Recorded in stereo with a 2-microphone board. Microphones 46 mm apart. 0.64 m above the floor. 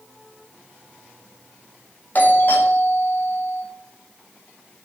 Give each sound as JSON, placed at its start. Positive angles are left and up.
{"t": 2.1, "sound": "a doorbell", "side_deg": 45, "distance_m": 2.5}